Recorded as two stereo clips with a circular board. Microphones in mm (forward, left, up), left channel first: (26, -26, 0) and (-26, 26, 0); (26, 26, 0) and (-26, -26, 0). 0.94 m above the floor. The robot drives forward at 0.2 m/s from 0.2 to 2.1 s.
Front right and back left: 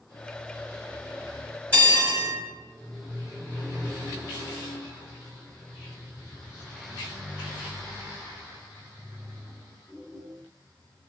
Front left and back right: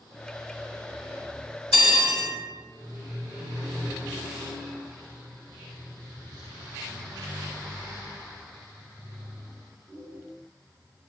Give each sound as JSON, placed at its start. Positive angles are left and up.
{"t": 1.7, "sound": "a bell", "azimuth_deg": -165, "distance_m": 1.5}